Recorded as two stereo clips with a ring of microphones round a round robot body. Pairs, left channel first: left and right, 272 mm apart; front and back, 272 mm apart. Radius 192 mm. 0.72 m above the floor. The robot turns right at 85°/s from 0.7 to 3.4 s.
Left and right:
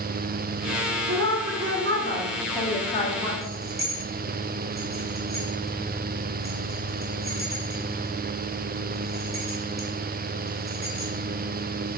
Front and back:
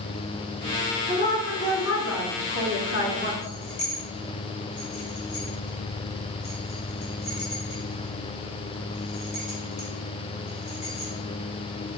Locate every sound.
1.1 s a woman speaking: 130° right, 1.7 m; by 3.3 s 60° left, 1.7 m
3.4 s keys jangling: 20° right, 1.7 m